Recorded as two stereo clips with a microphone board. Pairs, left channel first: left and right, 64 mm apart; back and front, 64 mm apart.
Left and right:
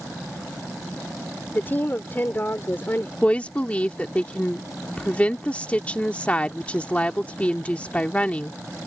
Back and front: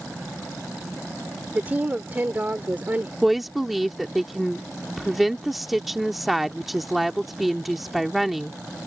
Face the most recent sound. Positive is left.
turn(degrees=85)